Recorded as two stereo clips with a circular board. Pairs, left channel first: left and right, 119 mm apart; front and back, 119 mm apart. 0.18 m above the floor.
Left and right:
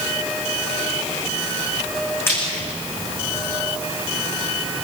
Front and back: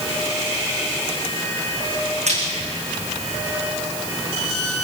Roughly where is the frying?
Behind.